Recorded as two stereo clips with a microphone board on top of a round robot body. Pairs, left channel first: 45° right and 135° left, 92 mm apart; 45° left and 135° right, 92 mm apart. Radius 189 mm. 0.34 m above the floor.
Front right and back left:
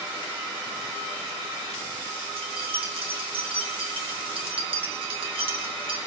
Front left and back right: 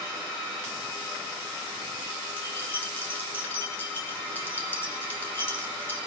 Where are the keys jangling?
115° left, 2.5 m.